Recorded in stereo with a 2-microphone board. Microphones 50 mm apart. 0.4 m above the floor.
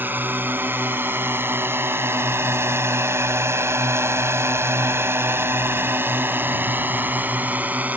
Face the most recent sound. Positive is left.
turn(degrees=-35)  # may be behind; listen again after turning